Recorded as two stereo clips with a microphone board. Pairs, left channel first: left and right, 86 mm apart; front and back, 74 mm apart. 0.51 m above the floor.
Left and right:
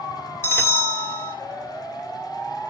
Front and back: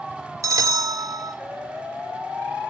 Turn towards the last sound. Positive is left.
turn(degrees=145)